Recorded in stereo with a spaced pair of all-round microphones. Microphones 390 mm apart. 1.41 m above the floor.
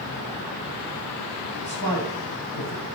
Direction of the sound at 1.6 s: 60° left (ahead or behind).